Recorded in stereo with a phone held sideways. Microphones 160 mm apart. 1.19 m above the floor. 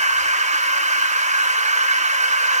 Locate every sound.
0.0 s a machine running: 50° right (ahead or behind), 0.8 m